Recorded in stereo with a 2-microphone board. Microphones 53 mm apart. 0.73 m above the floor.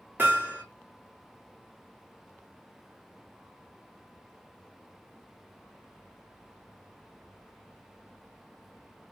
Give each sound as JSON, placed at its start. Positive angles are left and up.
{"t": 0.2, "sound": "hammering", "side_deg": -40, "distance_m": 1.6}